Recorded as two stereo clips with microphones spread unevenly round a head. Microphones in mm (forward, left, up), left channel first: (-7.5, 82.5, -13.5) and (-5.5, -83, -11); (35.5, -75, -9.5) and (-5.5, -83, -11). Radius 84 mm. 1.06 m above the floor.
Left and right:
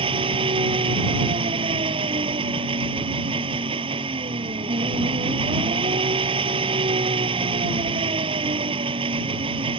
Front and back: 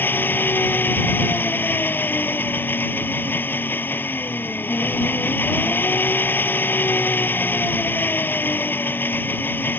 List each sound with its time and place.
0.0 s an engine running: 30° right